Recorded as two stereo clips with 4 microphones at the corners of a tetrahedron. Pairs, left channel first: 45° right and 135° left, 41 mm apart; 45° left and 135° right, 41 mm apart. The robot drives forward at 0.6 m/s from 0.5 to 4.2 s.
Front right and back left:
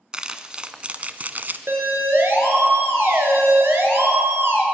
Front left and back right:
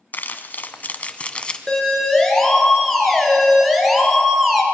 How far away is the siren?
About 4 m.